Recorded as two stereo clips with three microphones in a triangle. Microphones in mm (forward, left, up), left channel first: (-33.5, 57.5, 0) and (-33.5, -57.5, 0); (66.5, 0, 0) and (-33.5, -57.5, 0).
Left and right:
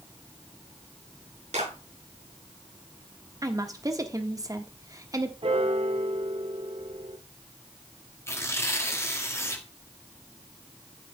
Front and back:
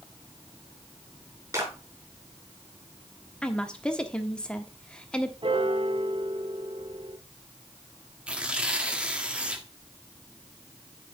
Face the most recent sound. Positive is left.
turn(degrees=135)